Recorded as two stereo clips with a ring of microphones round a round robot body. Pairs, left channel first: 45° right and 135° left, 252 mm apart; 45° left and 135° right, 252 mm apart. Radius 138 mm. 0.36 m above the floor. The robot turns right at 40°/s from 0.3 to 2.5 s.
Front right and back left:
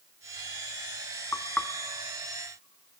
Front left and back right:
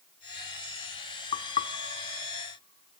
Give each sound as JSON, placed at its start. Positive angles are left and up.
{"t": 1.3, "sound": "knocking", "azimuth_deg": 25, "distance_m": 0.6}